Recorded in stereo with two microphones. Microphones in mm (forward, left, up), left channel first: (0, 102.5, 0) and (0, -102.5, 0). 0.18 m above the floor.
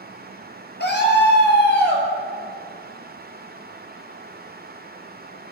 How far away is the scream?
About 3.5 m.